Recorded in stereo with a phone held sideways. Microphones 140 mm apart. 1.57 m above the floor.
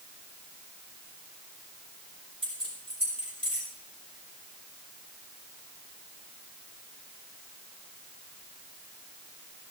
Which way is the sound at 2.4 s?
45° right (ahead or behind).